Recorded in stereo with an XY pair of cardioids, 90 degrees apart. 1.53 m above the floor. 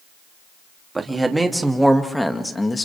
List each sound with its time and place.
0.9 s a man speaking: 25° right, 3 m; by 2.9 s 30° left, 2 m